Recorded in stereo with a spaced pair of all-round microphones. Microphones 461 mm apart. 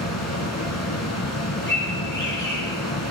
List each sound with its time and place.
0.0 s a fan: 35° left (ahead or behind), 3 m
1.7 s a bird: 25° left (ahead or behind), 9 m